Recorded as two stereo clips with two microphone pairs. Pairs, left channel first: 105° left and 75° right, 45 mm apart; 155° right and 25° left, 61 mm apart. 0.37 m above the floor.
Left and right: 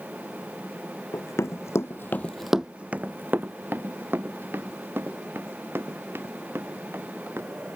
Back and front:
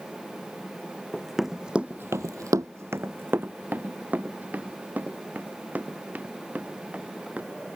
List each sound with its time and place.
1.1 s running footsteps: 120° left; by 7.8 s 40° right